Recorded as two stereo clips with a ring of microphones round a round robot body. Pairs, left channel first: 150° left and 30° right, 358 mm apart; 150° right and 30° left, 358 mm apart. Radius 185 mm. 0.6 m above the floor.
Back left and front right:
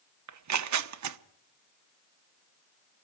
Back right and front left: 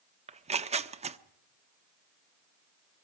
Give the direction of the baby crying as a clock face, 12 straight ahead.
No baby crying in this recording.